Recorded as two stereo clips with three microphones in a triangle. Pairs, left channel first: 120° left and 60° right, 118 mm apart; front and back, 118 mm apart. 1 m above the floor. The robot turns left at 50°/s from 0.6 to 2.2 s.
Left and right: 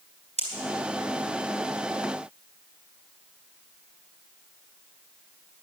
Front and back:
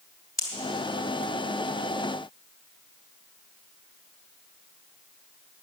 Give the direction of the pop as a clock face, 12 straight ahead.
2 o'clock.